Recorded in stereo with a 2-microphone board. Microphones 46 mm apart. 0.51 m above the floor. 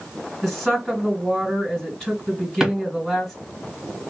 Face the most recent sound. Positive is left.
turn(degrees=-5)  # may be behind; listen again after turning